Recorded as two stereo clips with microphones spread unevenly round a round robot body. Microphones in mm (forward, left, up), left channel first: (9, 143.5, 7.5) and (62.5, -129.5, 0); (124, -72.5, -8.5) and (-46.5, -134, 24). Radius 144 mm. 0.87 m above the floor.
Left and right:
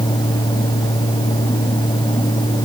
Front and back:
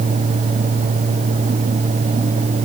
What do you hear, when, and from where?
Only background noise.